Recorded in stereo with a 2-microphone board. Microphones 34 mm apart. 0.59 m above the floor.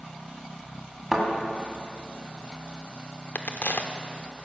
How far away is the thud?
About 2 m.